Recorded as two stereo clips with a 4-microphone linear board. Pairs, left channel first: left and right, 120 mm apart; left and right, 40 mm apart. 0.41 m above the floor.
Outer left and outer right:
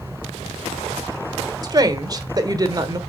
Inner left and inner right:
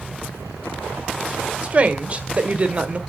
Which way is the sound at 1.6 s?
30° right (ahead or behind).